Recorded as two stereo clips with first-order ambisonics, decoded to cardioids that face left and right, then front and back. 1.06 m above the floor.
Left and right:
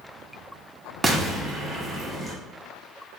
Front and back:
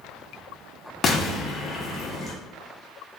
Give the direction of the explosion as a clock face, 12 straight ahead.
1 o'clock.